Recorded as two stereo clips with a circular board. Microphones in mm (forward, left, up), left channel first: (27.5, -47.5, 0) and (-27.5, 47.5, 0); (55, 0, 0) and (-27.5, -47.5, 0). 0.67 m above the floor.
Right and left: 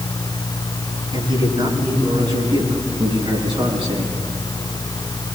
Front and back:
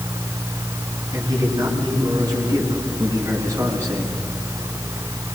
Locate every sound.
1.1 s a man speaking: 165° left, 9 m; by 4.1 s 155° left, 8 m